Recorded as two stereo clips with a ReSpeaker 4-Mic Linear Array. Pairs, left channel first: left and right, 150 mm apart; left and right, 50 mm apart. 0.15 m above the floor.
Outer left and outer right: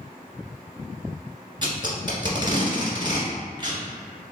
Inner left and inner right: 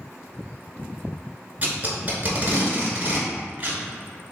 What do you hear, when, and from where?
1.6 s tape being pulled: 30° right (ahead or behind), 1.5 m